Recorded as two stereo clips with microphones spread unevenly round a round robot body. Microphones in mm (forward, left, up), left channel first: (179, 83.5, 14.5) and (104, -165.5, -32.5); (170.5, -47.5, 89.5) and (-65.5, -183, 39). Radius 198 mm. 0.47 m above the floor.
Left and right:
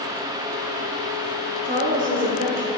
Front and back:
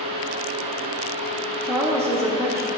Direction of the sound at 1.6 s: 85° right.